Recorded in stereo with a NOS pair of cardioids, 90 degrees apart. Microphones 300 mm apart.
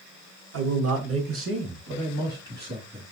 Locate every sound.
0.5 s a man speaking: 55° right, 1.8 m; by 3.1 s 30° right, 2.5 m